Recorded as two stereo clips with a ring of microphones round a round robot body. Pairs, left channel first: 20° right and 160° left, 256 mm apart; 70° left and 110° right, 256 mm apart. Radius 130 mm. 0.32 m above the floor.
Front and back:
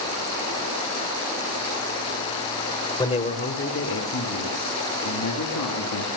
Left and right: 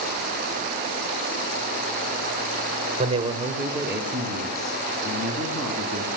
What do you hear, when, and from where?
3.0 s a man speaking: 80° right, 1.5 m; by 6.1 s 15° right, 4.5 m